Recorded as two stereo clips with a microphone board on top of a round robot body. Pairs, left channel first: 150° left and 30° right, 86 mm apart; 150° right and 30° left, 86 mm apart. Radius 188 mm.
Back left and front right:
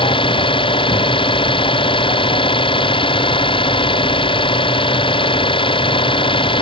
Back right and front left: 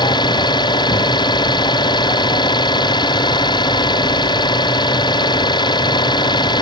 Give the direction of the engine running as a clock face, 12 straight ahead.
6 o'clock.